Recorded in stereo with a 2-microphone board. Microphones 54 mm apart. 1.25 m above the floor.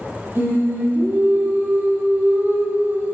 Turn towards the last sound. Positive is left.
turn(degrees=-45)  # may be behind; listen again after turning